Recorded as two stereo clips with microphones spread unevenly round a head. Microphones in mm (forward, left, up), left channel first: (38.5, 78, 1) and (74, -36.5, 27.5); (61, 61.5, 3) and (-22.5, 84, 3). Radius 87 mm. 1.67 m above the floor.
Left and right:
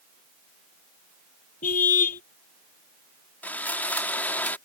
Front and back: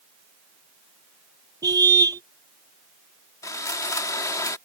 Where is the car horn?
125° left.